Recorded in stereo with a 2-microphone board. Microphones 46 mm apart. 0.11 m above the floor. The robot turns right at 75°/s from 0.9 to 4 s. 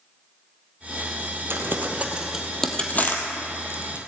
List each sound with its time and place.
1.5 s crumpling: 60° right (ahead or behind), 1.8 m; by 4.0 s 55° left (ahead or behind), 1.8 m